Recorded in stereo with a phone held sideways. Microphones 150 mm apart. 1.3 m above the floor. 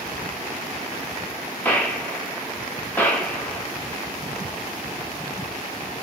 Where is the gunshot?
10° left (ahead or behind), 0.6 m.